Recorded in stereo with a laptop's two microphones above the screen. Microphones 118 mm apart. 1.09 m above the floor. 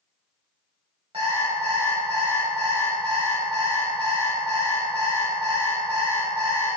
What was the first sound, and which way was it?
An alarm clock, 55° right (ahead or behind).